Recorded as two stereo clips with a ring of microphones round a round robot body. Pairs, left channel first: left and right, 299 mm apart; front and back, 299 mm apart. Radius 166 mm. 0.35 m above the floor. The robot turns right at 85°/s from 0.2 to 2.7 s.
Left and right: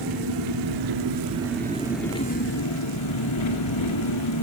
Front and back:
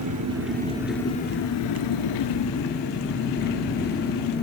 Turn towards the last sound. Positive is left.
turn(degrees=60)